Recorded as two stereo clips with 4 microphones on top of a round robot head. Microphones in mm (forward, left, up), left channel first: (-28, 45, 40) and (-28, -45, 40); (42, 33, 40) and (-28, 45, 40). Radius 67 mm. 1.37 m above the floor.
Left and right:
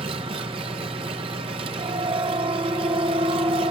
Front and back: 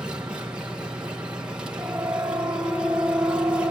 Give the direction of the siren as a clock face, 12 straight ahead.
4 o'clock.